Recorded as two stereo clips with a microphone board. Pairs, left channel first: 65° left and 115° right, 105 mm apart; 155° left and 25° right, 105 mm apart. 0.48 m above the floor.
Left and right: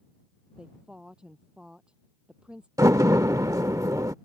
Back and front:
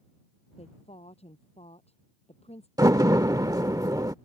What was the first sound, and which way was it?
A woman speaking, 165° left.